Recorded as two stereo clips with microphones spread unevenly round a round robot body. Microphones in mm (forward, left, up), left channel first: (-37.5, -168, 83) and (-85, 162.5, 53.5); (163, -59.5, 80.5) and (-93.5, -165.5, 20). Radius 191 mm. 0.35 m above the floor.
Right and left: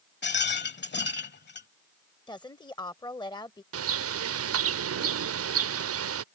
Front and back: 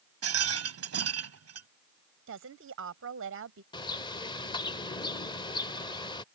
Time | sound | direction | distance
0.2 | a rattle | 140° right | ?
2.3 | a woman speaking | 160° right | ?
3.7 | a bird | 105° left | ?